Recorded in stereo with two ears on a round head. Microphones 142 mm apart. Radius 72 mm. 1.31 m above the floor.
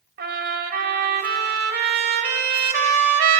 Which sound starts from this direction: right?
A trumpet, at 0.2 s.